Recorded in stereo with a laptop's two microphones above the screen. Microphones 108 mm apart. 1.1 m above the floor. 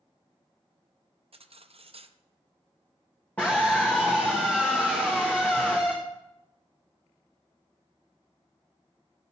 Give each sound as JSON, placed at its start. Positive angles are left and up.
{"t": 1.3, "sound": "cutlery clinking", "side_deg": -60, "distance_m": 0.5}
{"t": 3.4, "sound": "a scream", "side_deg": 15, "distance_m": 1.0}